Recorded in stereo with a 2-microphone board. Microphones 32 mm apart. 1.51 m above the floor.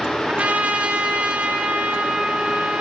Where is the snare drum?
No snare drum in this recording.